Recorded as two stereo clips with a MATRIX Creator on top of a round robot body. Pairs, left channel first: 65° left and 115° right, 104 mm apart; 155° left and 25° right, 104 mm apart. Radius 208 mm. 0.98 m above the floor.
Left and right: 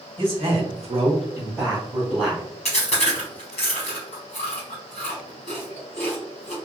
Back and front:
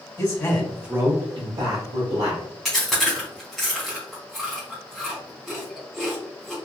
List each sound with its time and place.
0.2 s a man speaking: 145° right, 1.4 m; by 2.5 s 20° right, 2.5 m
2.6 s chewing: 65° left, 0.9 m